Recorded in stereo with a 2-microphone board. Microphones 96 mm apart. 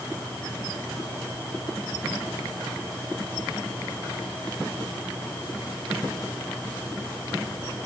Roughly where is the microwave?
I don't hear a microwave.